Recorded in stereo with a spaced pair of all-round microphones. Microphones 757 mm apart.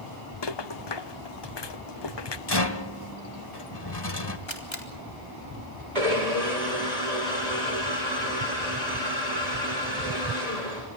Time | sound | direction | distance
0.4 | a rattle | 35° left (ahead or behind) | 0.8 m
2.5 | a rattle | 35° left (ahead or behind) | 1.7 m
4.5 | a camera shutter | 40° left (ahead or behind) | 3.5 m
6.0 | a blender | 65° right (ahead or behind) | 8 m